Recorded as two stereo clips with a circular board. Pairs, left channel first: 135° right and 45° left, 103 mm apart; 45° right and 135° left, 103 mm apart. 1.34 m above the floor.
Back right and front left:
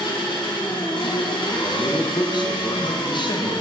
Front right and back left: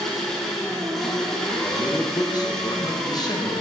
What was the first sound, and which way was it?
An engine running, 130° right.